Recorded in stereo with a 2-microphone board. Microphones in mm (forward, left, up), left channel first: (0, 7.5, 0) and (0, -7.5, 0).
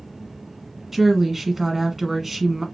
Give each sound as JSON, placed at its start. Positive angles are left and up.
{"t": 0.9, "sound": "a woman speaking", "side_deg": -15, "distance_m": 1.4}